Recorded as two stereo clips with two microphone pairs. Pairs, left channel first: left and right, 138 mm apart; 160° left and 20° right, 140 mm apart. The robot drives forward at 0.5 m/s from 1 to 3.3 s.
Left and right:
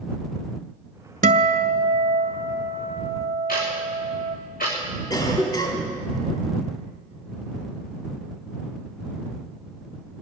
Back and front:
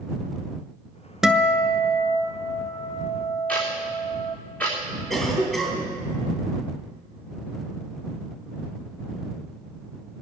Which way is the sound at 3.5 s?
80° left.